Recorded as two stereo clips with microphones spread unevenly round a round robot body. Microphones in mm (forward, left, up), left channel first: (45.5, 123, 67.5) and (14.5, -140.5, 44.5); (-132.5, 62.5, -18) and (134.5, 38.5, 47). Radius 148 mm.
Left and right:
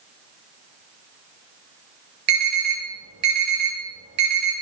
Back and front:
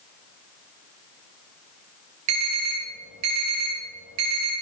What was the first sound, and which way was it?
An alarm, 45° right.